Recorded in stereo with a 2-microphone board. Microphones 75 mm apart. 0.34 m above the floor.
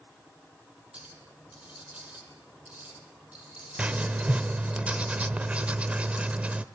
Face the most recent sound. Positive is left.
turn(degrees=-20)  # may be behind; listen again after turning